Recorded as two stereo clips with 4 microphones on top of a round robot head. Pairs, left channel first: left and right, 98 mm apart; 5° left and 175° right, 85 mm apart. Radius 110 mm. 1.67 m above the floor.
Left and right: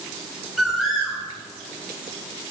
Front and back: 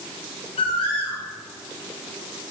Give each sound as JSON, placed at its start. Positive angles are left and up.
{"t": 0.6, "sound": "a bird", "azimuth_deg": 0, "distance_m": 2.5}